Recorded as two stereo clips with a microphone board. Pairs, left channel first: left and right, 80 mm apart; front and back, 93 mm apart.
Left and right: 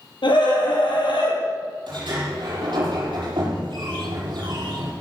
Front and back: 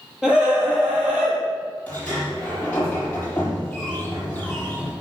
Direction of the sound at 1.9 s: 75° right.